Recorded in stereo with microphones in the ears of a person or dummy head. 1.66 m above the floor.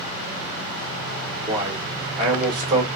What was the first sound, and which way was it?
A man speaking, 20° right (ahead or behind).